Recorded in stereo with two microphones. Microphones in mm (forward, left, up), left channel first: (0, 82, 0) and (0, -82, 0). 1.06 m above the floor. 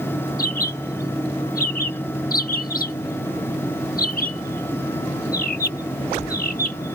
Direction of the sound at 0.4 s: 60° left (ahead or behind).